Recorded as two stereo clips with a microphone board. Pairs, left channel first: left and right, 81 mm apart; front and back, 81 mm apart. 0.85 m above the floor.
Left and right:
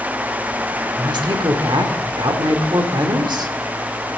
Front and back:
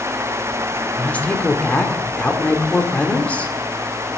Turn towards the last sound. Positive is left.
turn(degrees=-70)